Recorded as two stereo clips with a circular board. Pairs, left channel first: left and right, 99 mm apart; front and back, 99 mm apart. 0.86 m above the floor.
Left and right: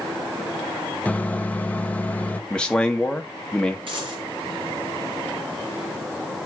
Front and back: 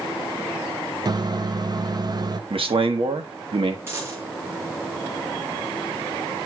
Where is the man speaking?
170° left, 1.4 m.